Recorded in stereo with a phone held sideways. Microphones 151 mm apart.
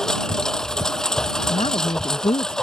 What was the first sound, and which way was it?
A lawn mower, 5° left (ahead or behind).